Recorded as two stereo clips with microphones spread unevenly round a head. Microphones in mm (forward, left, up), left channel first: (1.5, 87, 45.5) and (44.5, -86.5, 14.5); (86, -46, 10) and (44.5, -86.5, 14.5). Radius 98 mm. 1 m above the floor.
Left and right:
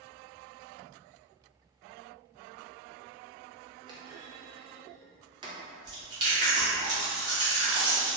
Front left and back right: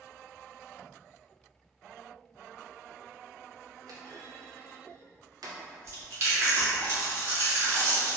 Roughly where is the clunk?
Behind right.